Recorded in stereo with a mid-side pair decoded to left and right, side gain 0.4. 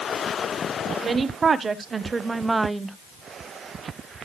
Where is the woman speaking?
45° right, 1.7 m; by 3.0 s 10° right, 0.9 m.